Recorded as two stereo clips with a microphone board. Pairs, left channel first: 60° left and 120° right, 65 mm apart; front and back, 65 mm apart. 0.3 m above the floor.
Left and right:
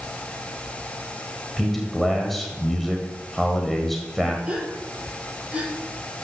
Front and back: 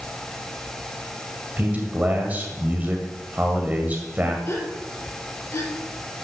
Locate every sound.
1.6 s a man speaking: 145° left, 1.7 m
4.5 s a gasp: 50° right, 4.5 m